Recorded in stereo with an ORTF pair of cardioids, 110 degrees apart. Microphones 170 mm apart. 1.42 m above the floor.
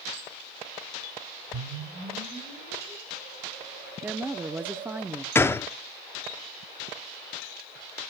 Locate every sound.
1.5 s a whoosh: 65° right, 4.5 m
4.0 s a woman speaking: 10° right, 0.6 m
5.3 s a gunshot: 15° left, 0.5 m